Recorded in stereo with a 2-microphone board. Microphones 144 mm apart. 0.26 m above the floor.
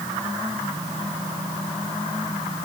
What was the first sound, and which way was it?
Only background noise.